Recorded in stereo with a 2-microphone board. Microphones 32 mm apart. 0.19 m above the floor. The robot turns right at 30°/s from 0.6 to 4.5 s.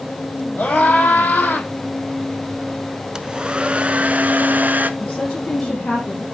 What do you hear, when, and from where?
0.6 s a scream: 55° left, 6 m; by 1.7 s 85° left, 6 m
3.1 s a hair dryer: 155° right, 0.7 m; by 4.9 s 115° right, 0.7 m
5.0 s a woman speaking: 30° left (ahead or behind), 3.5 m